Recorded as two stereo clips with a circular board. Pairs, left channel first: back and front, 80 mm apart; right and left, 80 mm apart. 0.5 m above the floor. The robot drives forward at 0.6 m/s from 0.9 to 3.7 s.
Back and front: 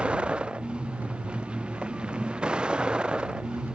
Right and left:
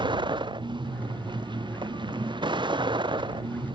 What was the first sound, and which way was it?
A vehicle, 75° left.